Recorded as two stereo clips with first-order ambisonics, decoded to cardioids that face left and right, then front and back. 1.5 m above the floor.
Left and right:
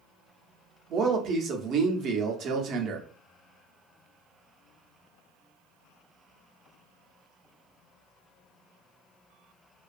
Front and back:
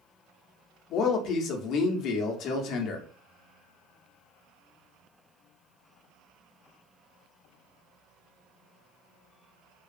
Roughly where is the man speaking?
Ahead right.